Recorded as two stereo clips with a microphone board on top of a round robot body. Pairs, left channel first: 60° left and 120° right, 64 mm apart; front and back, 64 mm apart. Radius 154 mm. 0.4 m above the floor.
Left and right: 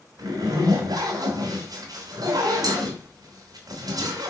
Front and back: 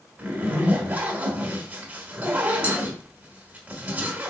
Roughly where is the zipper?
Behind right.